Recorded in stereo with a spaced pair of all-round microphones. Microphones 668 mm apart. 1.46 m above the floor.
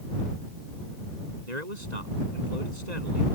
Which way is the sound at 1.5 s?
90° right.